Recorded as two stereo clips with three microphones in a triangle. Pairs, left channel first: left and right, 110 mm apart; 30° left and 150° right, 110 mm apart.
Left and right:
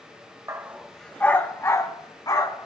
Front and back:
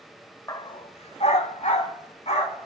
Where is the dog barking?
30° right, 0.6 m; by 2.7 s 40° left, 1.9 m.